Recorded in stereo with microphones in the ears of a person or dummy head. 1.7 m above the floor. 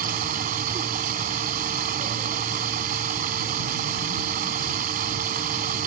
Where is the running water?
50° right (ahead or behind).